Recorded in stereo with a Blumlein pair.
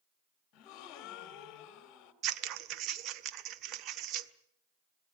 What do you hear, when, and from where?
0.5 s a gasp: 35° left, 2 m
2.2 s scissors: 35° right, 1.1 m